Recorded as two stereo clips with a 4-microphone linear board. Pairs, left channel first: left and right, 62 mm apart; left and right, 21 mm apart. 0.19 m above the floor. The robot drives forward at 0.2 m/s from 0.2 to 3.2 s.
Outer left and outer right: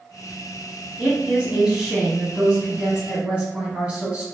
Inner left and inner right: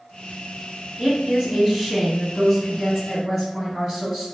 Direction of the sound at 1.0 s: 15° right (ahead or behind).